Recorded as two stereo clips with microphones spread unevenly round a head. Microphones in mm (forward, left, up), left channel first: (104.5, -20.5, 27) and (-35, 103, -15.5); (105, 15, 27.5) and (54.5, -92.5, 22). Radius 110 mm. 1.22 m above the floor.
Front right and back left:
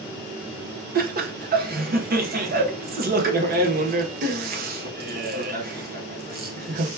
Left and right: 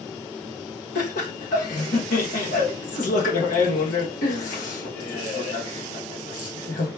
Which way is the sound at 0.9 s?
100° left.